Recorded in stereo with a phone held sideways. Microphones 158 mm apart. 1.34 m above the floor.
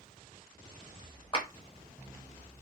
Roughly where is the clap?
Left.